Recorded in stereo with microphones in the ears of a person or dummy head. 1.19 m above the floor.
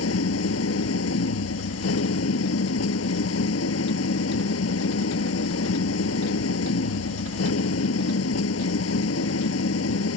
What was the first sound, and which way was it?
An engine running, 85° left.